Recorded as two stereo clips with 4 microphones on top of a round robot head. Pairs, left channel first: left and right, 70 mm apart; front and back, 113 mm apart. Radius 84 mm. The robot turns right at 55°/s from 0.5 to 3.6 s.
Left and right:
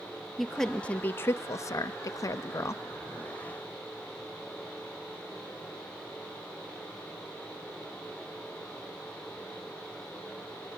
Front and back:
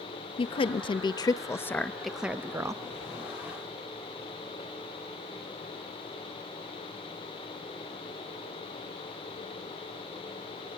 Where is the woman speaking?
5° left, 0.7 m; by 2.8 s 130° left, 0.7 m.